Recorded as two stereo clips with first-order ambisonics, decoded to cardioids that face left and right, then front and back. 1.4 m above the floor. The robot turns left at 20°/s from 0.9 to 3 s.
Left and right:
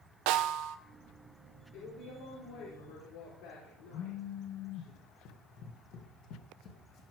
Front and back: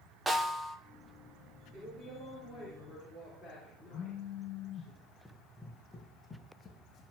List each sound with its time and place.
0.3 s a snare drum: 100° right, 0.9 m
1.7 s a woman speaking: 110° left, 4.5 m; by 4.9 s 80° left, 4.5 m
3.9 s a phone buzzing: 60° left, 1.2 m
5.2 s running footsteps: 90° left, 3 m; by 7.0 s 55° left, 2.5 m